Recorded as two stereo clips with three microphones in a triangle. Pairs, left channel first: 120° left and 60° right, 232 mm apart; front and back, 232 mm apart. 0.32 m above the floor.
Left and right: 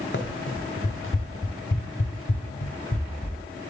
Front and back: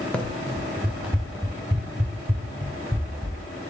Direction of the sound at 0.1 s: 85° left.